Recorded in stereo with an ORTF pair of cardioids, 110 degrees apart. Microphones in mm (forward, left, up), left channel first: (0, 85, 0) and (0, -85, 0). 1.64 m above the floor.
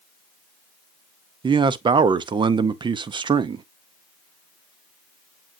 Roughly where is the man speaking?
Ahead right.